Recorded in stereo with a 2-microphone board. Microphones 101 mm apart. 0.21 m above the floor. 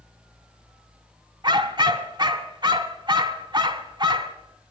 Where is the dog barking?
50° right (ahead or behind), 0.8 m.